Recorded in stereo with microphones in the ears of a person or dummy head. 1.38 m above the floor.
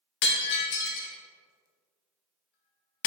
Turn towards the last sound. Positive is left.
turn(degrees=60)  # may be behind; listen again after turning